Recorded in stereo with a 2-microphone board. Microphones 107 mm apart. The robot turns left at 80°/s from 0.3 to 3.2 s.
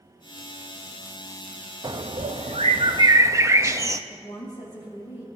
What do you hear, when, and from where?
1.8 s a bird: 45° right, 0.5 m; by 4.0 s 150° right, 0.5 m
4.1 s a woman speaking: 75° left (ahead or behind), 2.5 m